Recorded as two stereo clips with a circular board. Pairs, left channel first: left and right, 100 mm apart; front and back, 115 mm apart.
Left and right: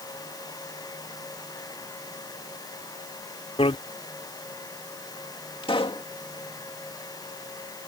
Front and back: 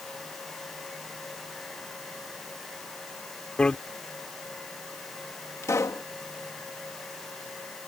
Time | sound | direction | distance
3.6 | a bicycle bell | 80° left | ?
5.6 | a pop | 65° left | ?